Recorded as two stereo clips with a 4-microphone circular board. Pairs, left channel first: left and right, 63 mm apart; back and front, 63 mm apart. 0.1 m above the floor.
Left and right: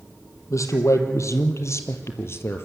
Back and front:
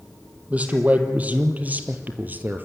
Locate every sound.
0.5 s a man speaking: 65° left, 3 m; by 2.7 s 55° left, 2 m